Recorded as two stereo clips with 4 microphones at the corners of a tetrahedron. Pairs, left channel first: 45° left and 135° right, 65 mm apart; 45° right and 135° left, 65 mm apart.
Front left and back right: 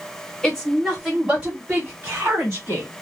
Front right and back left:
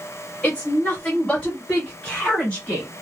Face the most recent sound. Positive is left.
turn(degrees=-110)